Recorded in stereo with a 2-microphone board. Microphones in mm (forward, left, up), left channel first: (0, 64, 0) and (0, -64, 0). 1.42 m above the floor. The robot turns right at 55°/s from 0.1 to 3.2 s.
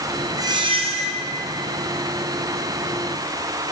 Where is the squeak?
155° right, 0.9 m; by 1.2 s 110° right, 0.9 m.